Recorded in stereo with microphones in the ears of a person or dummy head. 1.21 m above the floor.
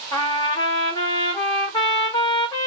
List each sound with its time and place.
0.1 s a trumpet: 20° left (ahead or behind), 1.1 m